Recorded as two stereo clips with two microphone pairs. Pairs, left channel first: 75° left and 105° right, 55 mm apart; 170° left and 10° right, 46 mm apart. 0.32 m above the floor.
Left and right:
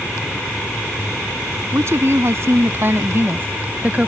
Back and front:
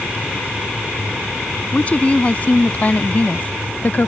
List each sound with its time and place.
1.7 s a woman speaking: 130° right; by 4.1 s 160° right